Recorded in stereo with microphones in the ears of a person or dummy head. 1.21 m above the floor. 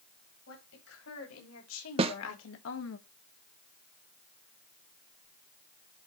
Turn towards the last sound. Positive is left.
turn(degrees=-35)  # may be behind; listen again after turning